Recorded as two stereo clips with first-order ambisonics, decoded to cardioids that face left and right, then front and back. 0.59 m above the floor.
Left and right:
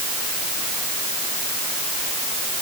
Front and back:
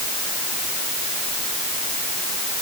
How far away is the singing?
No singing in this recording.